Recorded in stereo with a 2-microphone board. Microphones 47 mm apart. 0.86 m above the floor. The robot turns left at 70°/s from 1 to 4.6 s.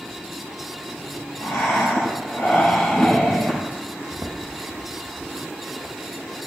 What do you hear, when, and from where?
1.4 s breathing: 125° left, 6 m; by 3.6 s 30° right, 6 m
4.1 s footsteps: 45° right (ahead or behind), 2.5 m; by 5.3 s 65° right (ahead or behind), 2.5 m